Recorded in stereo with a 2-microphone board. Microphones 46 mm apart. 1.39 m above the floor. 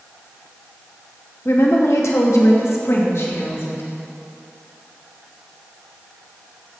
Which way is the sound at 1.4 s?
65° left (ahead or behind).